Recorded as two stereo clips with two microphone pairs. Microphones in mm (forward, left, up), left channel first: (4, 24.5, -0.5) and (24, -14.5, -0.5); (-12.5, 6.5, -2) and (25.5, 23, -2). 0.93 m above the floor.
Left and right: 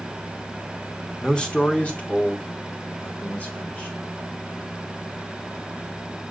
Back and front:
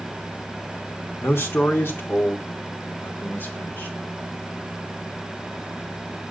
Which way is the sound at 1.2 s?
170° right.